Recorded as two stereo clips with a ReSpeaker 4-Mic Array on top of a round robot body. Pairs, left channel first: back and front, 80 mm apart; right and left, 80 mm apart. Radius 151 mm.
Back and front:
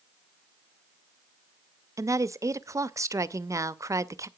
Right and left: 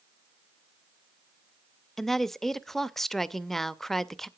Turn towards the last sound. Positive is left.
turn(degrees=-5)